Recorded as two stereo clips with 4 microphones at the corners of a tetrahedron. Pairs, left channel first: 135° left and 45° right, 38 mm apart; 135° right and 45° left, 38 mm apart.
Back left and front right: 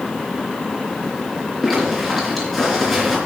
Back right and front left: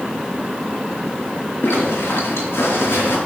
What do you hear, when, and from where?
1.6 s a zipper: 135° right, 3.5 m